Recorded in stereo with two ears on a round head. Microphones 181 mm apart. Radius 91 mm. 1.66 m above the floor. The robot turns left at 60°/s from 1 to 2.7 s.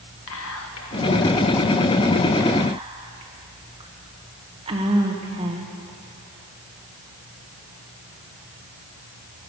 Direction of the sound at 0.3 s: 75° left (ahead or behind).